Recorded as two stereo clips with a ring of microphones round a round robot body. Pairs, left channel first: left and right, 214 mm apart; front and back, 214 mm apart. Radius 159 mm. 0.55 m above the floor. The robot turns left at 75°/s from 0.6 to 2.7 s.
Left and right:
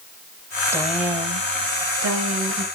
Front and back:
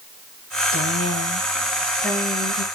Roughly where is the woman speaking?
Ahead.